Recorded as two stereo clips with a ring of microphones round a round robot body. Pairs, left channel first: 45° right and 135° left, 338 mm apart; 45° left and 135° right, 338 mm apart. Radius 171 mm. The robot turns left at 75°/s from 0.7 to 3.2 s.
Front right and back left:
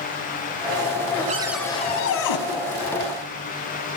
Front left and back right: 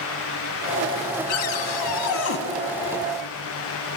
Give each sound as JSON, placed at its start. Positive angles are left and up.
{"t": 1.3, "sound": "a cupboard door", "azimuth_deg": 65, "distance_m": 1.5}